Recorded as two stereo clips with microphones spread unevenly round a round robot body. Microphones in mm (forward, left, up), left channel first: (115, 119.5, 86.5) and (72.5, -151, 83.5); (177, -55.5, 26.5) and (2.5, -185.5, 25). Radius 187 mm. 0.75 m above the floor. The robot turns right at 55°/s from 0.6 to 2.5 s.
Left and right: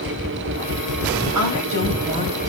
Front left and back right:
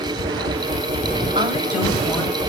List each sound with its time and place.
1.4 s a woman speaking: 80° right, 4 m; by 2.5 s 20° right, 4 m